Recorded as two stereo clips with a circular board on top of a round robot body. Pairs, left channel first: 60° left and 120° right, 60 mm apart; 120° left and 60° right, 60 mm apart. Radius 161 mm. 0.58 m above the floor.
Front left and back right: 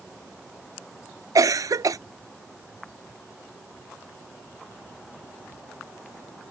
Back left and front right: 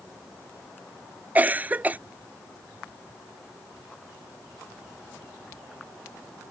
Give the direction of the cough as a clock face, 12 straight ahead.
4 o'clock.